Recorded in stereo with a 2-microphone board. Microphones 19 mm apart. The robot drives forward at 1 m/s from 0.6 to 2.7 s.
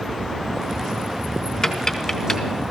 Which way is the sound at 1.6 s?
25° left (ahead or behind).